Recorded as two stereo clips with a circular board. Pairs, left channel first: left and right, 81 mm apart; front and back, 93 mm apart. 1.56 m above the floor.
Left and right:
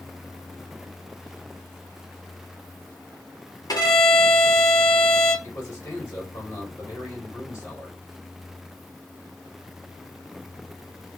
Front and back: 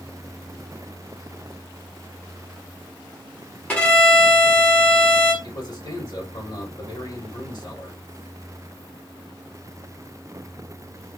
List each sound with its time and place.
3.7 s a violin: 70° left, 1.7 m
5.4 s a man speaking: 40° left, 2 m